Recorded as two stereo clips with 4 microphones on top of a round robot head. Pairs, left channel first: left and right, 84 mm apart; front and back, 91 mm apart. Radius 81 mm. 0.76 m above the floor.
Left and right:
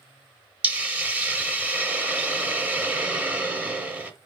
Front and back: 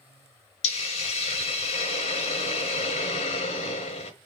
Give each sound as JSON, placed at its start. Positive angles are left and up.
{"t": 0.6, "sound": "a hiss", "azimuth_deg": -15, "distance_m": 0.7}